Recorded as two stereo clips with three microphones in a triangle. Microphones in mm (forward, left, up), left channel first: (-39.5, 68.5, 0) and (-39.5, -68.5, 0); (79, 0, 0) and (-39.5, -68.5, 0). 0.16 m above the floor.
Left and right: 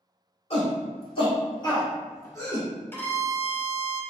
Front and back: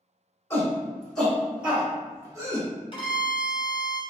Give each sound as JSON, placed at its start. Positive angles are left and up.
{"t": 0.5, "sound": "a shout", "azimuth_deg": 95, "distance_m": 1.5}
{"t": 2.9, "sound": "a violin", "azimuth_deg": 30, "distance_m": 0.8}